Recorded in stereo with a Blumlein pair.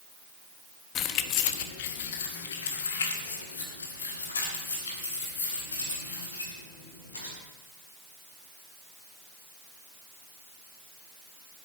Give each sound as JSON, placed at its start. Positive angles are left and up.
{"t": 0.9, "sound": "keys jangling", "azimuth_deg": 30, "distance_m": 0.9}